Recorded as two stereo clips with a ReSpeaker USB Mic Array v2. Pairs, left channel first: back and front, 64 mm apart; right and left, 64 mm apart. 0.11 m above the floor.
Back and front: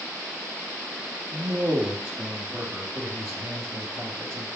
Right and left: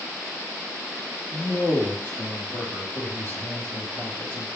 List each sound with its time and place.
1.3 s a man speaking: 40° right, 2 m